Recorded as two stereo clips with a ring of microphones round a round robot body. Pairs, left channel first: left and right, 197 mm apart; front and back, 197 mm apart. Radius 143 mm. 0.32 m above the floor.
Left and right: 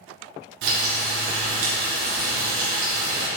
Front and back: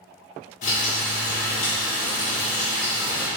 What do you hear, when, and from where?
0.6 s frying: 65° right, 2 m